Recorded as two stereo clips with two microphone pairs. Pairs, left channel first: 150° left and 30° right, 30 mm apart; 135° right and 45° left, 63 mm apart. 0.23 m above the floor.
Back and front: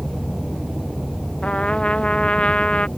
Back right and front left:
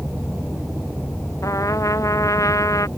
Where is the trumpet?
160° right.